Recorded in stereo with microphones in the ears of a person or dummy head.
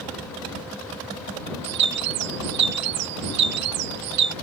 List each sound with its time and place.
1.6 s a bird: 60° right (ahead or behind)